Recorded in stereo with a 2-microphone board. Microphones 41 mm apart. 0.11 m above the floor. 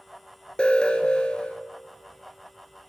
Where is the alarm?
25° left (ahead or behind), 1.0 m.